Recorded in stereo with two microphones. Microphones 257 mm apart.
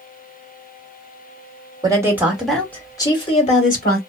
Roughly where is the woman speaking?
Centre.